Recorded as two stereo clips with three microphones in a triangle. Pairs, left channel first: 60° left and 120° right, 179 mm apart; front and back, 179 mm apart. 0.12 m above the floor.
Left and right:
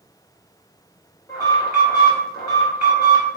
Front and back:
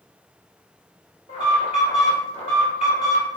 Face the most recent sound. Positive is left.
turn(degrees=15)